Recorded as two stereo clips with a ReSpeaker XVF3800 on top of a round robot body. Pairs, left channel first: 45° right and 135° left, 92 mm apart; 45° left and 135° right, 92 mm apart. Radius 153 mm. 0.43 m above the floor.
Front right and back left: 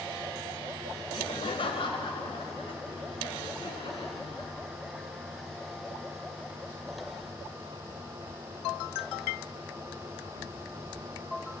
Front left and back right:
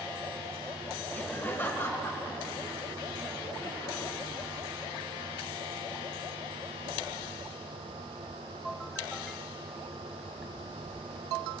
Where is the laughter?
30° right, 1.5 m; by 4.5 s 15° right, 6 m.